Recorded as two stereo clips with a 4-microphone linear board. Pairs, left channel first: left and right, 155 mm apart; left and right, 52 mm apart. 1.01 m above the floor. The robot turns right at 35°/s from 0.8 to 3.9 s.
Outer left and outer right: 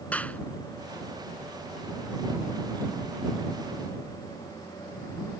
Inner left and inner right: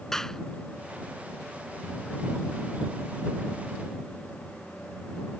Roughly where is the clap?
Centre.